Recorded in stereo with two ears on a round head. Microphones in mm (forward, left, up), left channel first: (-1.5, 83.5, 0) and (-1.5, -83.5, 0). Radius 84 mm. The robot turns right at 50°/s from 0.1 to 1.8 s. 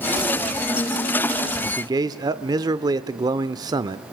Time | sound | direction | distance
1.6 | a man speaking | 20° right (ahead or behind) | 0.7 m